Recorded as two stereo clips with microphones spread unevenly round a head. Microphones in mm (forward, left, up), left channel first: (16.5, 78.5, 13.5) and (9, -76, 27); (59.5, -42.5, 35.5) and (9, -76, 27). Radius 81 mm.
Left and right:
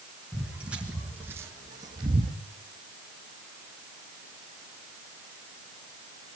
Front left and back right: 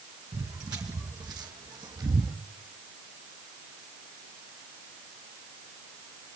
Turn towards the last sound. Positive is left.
turn(degrees=-140)